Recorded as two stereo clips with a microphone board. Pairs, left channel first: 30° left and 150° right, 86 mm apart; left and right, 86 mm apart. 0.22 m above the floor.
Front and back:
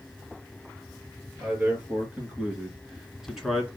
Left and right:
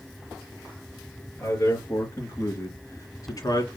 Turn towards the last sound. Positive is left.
turn(degrees=120)